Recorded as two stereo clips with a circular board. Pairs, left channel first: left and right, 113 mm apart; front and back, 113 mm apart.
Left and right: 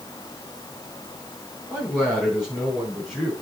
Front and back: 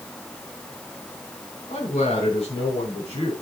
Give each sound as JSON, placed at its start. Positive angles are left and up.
{"t": 1.7, "sound": "a man speaking", "azimuth_deg": -5, "distance_m": 7.0}